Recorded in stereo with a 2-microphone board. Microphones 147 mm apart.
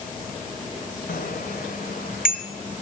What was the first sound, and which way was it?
A bicycle bell, 80° left.